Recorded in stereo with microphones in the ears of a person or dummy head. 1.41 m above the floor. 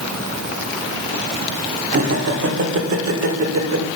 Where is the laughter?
45° right (ahead or behind), 1.1 m; by 3.9 s 85° right, 1.7 m.